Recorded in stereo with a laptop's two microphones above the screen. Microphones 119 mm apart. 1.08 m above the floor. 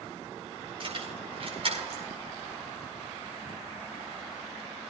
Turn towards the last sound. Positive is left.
turn(degrees=-55)  # may be behind; listen again after turning